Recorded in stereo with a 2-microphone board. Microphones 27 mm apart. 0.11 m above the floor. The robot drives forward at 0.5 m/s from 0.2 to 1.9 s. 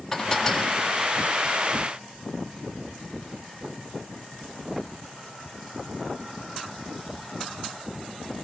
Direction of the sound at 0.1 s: 5° left (ahead or behind).